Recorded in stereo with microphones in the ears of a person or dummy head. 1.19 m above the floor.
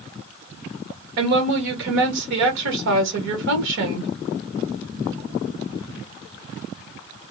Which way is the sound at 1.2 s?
65° right (ahead or behind).